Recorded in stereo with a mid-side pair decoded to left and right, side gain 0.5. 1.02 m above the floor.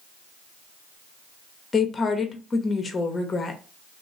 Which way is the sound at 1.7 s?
30° left.